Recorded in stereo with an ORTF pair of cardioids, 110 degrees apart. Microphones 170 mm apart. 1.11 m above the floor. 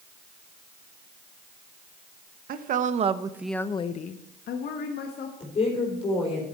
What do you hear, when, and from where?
2.5 s a woman speaking: 60° right, 1.1 m; by 5.3 s 75° left, 1.8 m
5.4 s a woman speaking: 35° left, 3.5 m